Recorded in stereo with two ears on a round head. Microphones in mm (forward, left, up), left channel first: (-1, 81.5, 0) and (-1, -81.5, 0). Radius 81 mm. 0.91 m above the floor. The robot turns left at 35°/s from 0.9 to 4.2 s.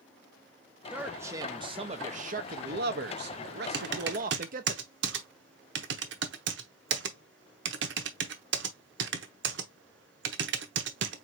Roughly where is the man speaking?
Ahead.